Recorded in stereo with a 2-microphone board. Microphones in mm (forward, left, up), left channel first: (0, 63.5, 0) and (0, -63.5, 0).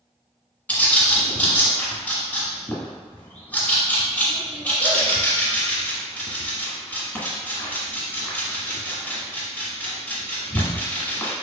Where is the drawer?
No drawer in this recording.